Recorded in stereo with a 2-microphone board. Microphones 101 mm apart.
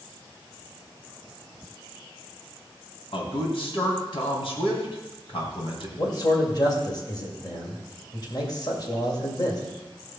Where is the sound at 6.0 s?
45° left (ahead or behind), 2 m.